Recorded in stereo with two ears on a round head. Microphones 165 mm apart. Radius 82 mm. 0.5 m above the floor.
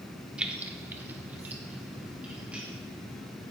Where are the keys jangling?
5° right (ahead or behind), 0.8 m.